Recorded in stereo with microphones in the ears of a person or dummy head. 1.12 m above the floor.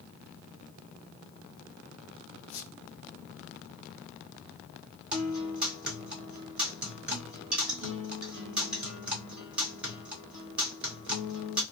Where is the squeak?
55° left (ahead or behind), 0.8 m.